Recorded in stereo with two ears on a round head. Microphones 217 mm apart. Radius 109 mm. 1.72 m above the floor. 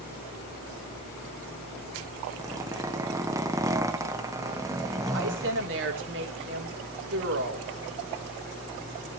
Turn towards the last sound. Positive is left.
turn(degrees=-55)  # may be behind; listen again after turning